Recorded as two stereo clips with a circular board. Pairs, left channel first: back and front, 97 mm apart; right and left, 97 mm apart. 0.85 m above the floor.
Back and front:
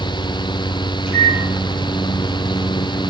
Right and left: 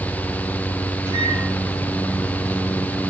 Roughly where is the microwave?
Ahead right.